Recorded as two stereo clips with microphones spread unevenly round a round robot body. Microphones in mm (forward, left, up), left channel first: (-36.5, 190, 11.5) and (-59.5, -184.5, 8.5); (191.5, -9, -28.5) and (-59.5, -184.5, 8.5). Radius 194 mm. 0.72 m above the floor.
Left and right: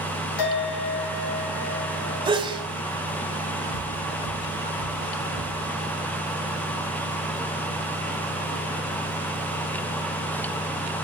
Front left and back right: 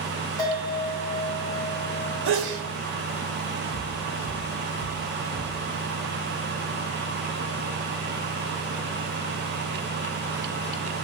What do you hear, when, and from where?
0.4 s a bell: 115° left, 2.5 m
2.2 s a sneeze: 170° right, 2.5 m
3.7 s footsteps: 105° left, 4 m; by 5.6 s 130° left, 6 m